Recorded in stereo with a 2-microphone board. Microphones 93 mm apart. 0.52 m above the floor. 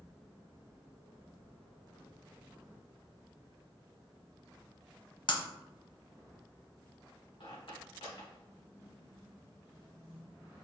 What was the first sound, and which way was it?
Breaking glass, 55° left (ahead or behind).